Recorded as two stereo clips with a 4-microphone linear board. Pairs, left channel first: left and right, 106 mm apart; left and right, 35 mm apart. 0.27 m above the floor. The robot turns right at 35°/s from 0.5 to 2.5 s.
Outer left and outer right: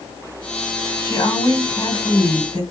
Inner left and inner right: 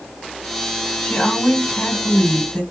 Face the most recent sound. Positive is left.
turn(degrees=100)